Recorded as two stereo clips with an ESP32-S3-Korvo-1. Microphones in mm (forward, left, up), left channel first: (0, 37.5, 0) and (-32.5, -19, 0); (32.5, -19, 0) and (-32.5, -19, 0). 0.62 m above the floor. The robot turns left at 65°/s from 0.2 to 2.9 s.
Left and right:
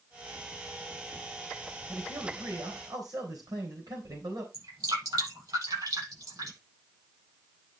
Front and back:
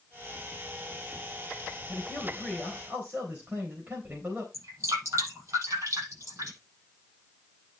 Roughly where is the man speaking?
Ahead right.